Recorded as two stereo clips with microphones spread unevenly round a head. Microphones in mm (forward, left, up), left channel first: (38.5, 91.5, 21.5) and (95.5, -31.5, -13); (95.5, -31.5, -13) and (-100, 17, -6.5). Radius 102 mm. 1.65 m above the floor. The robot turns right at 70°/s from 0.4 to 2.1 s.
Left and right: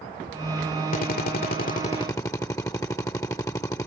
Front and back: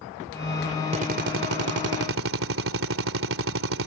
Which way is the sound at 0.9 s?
105° left.